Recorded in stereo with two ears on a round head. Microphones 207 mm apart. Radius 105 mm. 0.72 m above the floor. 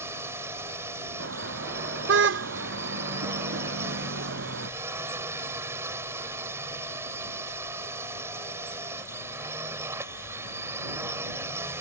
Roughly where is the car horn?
Right.